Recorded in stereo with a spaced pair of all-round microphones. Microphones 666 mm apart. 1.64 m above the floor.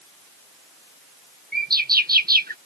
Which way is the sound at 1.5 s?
15° right (ahead or behind).